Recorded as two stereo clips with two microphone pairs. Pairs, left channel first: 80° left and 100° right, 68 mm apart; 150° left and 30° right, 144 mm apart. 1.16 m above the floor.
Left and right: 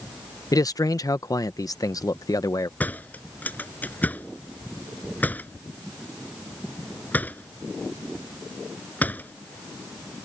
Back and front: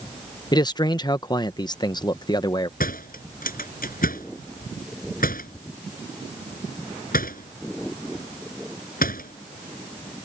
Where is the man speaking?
90° left.